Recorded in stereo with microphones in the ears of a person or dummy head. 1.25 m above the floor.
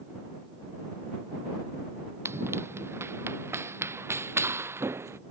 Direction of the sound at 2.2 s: 10° right (ahead or behind).